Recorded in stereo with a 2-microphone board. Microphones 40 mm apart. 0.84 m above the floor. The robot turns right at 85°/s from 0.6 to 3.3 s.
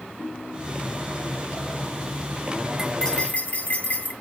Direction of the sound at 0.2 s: 115° left.